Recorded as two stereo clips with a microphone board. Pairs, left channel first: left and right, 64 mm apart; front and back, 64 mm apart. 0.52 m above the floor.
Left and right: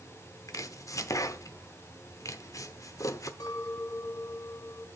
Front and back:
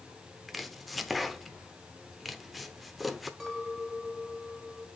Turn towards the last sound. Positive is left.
turn(degrees=85)